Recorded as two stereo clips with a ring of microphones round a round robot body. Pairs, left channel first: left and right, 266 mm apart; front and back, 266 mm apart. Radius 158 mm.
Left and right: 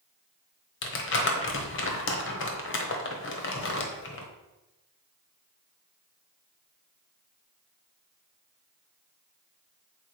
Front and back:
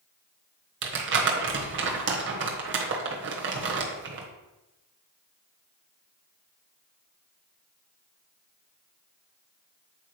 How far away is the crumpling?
About 1.2 m.